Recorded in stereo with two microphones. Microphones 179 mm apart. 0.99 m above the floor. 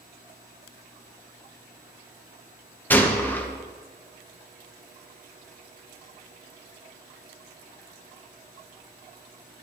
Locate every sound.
2.9 s a gunshot: 10° left (ahead or behind), 0.9 m